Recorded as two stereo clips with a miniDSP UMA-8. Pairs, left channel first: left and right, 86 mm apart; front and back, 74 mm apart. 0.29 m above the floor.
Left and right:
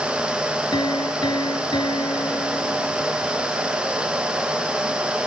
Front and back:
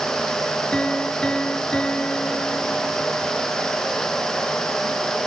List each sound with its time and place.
0.7 s a piano: 75° left